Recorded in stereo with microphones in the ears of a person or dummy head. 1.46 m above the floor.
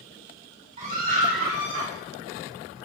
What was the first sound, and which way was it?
A scream, 40° right (ahead or behind).